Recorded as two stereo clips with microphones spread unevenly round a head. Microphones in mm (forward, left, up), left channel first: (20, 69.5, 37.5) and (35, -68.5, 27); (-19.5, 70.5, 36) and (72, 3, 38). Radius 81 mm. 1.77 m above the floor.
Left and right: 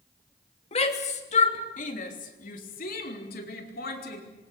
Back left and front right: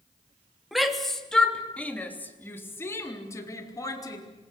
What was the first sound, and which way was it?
A shout, 50° left.